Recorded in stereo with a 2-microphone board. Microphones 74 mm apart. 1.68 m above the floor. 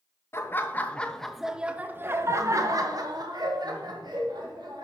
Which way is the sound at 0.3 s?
35° left (ahead or behind).